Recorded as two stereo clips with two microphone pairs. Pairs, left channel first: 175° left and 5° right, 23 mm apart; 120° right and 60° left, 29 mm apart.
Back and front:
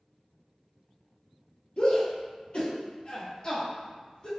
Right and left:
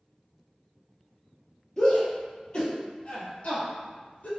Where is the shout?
175° left, 2.0 m; by 4.3 s 140° right, 2 m.